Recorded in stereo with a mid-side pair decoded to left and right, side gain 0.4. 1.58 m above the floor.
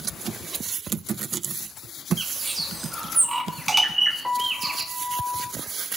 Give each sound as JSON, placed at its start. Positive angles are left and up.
{"t": 2.2, "sound": "a bird", "azimuth_deg": -20, "distance_m": 2.0}
{"t": 4.2, "sound": "a piano", "azimuth_deg": -5, "distance_m": 3.5}